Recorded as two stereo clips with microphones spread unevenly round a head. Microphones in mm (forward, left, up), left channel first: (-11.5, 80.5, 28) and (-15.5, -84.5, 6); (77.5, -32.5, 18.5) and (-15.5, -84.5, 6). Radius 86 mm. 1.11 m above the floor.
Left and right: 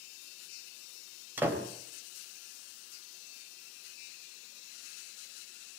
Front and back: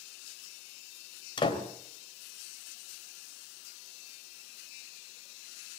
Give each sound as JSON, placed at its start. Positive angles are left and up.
{"t": 1.4, "sound": "a door slam", "azimuth_deg": -10, "distance_m": 3.5}